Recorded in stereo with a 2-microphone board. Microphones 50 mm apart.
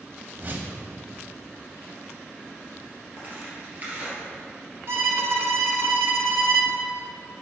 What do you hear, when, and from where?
0.4 s a whoosh: 40° right (ahead or behind), 0.9 m
3.2 s tearing paper: 35° right (ahead or behind), 2.5 m
4.9 s a violin: 60° right (ahead or behind), 0.8 m